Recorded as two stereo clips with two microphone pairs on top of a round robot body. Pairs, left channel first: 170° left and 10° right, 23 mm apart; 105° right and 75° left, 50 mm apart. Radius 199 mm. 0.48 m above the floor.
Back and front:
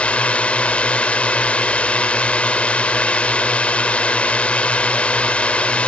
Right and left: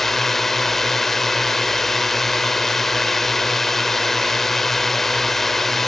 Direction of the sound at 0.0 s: 170° left.